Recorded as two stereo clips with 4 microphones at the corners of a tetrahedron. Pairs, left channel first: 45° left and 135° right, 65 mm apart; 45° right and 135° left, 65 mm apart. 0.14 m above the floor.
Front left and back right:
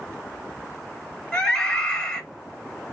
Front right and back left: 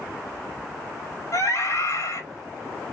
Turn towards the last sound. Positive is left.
turn(degrees=-35)